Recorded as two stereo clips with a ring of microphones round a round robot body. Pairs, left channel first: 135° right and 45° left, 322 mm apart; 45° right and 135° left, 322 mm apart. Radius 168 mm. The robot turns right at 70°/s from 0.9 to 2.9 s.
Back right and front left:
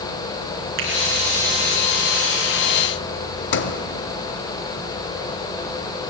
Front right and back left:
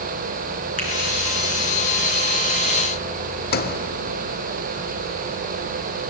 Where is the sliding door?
95° right, 1.0 m.